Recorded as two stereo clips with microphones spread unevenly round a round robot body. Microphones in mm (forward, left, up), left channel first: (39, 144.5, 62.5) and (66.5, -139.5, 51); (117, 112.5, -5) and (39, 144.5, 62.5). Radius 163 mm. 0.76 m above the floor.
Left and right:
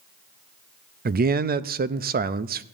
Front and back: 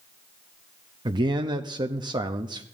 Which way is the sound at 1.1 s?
120° right.